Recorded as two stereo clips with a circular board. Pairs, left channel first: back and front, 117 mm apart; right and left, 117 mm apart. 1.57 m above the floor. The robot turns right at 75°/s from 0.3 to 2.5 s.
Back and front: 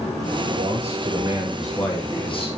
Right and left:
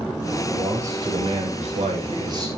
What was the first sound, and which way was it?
A man speaking, straight ahead.